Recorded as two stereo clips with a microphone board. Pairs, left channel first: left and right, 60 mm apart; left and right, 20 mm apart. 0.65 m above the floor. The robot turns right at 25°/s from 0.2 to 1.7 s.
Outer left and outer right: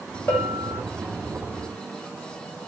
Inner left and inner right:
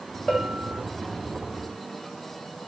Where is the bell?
45° left (ahead or behind), 1.4 m.